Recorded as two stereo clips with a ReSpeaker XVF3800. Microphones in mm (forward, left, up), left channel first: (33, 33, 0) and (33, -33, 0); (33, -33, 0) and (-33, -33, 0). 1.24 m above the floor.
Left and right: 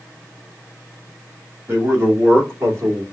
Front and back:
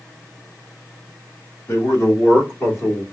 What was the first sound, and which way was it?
A man speaking, 40° right.